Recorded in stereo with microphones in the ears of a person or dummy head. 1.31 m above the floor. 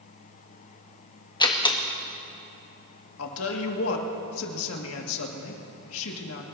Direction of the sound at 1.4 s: 20° left (ahead or behind).